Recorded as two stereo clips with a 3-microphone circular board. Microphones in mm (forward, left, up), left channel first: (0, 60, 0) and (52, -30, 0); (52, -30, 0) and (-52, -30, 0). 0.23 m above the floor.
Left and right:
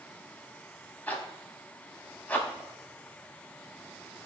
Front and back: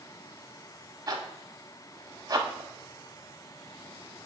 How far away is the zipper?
About 0.7 m.